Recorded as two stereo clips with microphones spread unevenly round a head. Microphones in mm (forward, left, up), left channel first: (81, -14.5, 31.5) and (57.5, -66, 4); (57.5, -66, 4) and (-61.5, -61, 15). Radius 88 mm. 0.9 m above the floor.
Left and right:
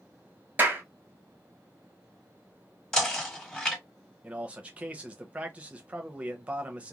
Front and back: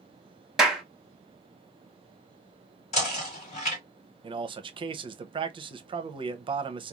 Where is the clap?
95° right, 0.9 m.